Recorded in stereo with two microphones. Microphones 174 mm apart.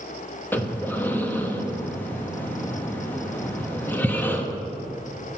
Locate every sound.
0.5 s breathing: 10° left (ahead or behind), 0.9 m